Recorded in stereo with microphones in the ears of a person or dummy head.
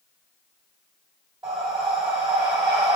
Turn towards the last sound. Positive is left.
turn(degrees=-10)  # may be behind; listen again after turning